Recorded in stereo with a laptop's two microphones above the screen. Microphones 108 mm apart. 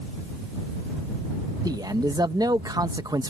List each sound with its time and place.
1.6 s a man speaking: 40° right (ahead or behind)